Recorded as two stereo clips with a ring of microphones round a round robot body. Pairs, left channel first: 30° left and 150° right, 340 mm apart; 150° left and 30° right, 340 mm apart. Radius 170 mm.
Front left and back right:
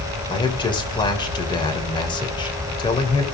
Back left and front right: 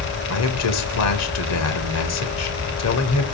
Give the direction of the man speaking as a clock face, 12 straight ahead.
8 o'clock.